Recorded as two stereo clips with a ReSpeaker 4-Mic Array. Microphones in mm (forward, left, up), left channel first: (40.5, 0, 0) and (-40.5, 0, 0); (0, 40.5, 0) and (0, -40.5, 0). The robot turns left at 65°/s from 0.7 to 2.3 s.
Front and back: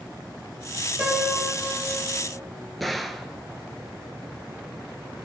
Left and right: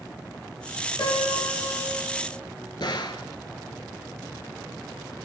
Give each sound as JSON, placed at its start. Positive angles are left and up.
{"t": 1.0, "sound": "a piano", "azimuth_deg": 105, "distance_m": 3.0}
{"t": 2.8, "sound": "a gunshot", "azimuth_deg": 90, "distance_m": 0.6}